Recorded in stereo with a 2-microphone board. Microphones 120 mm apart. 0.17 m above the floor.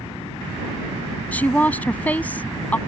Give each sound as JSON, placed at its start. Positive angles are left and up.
{"t": 1.3, "sound": "a woman speaking", "side_deg": 15}